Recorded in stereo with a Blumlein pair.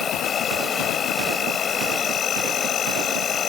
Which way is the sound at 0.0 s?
25° left.